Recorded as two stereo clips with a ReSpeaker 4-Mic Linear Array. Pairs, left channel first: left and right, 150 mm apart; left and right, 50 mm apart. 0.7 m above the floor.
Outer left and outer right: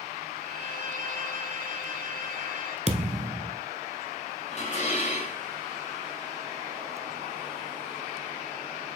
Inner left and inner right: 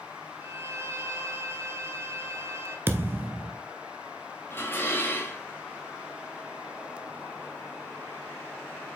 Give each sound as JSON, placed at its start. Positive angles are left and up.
{"t": 0.4, "sound": "a violin", "side_deg": -70, "distance_m": 1.3}
{"t": 2.9, "sound": "a thud", "side_deg": -50, "distance_m": 1.0}
{"t": 4.5, "sound": "dishes clattering", "side_deg": 50, "distance_m": 2.5}